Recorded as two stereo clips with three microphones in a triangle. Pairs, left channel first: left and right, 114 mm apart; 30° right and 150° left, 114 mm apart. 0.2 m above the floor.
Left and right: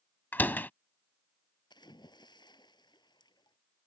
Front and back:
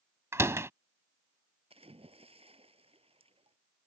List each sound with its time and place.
0.3 s a door slam: 135° left
1.7 s a splash: 135° left